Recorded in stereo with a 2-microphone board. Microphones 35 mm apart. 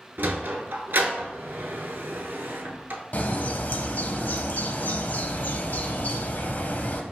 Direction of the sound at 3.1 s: 55° left (ahead or behind).